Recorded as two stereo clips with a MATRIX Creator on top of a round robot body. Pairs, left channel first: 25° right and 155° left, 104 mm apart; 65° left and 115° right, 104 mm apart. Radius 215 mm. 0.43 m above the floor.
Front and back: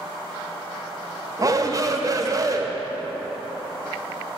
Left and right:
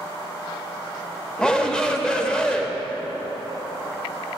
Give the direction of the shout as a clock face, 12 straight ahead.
7 o'clock.